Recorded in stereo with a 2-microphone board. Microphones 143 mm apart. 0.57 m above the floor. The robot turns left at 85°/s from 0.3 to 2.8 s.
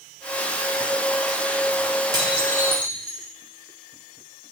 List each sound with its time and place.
2.1 s dishes clattering: 25° right, 1.9 m; by 3.3 s 85° right, 1.9 m